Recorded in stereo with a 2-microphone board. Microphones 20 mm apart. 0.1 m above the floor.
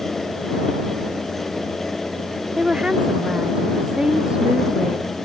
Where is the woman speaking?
40° right (ahead or behind).